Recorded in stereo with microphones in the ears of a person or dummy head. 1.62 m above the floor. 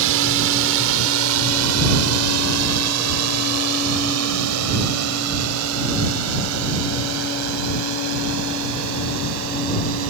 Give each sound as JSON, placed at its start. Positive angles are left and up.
{"t": 0.0, "sound": "a drone", "side_deg": -70}